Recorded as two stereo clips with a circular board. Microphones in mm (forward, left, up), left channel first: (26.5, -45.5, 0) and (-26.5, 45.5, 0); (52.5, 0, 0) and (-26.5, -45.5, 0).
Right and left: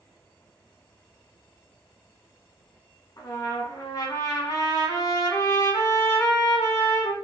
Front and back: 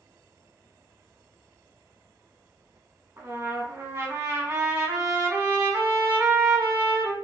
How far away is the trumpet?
About 1.0 m.